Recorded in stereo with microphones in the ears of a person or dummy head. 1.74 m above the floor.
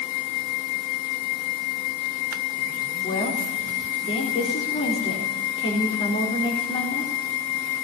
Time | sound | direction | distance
3.0 | a woman speaking | 35° left (ahead or behind) | 4 m